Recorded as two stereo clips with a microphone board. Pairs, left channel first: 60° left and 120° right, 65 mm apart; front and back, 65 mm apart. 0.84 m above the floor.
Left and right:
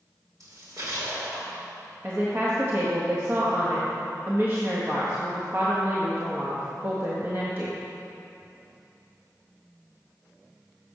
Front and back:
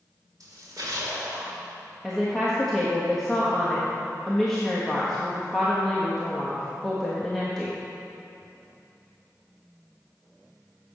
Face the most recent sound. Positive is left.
turn(degrees=-85)